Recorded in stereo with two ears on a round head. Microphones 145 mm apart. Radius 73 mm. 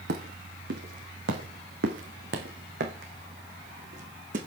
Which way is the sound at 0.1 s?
75° right (ahead or behind).